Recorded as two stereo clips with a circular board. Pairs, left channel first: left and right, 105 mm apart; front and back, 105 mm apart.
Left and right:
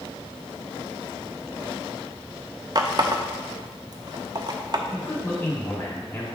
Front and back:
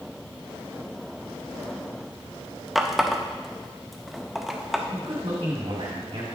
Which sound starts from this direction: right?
A running tap, at 2.8 s.